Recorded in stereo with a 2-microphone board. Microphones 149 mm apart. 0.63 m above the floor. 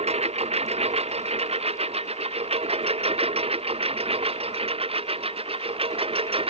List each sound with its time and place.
0.0 s a lawn mower: 45° right (ahead or behind); by 6.5 s 40° right (ahead or behind)